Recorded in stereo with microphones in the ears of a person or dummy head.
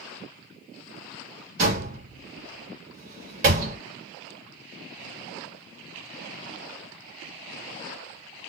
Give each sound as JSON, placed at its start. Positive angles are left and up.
{"t": 1.6, "sound": "a door slam", "side_deg": -45, "distance_m": 1.3}